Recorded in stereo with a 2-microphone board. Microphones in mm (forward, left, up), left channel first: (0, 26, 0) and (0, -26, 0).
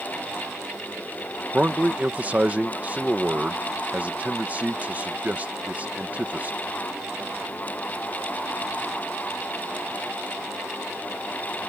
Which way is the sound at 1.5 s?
30° right (ahead or behind).